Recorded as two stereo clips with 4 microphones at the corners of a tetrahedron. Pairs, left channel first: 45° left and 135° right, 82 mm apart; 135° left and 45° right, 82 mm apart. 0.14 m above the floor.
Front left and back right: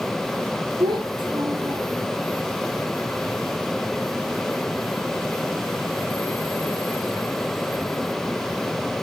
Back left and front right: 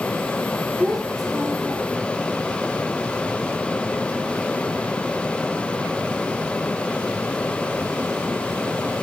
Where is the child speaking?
135° right, 4 m.